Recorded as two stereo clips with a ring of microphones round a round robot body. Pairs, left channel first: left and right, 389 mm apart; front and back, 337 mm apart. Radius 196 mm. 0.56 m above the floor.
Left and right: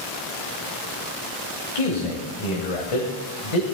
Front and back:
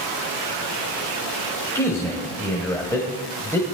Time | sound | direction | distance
1.8 | a man speaking | 80° left | 2.5 m